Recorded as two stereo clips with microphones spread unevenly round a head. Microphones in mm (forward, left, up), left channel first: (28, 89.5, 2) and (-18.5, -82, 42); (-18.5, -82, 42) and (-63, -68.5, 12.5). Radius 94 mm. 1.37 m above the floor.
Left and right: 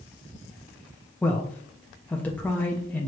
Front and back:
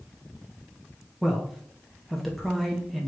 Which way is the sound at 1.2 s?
130° left.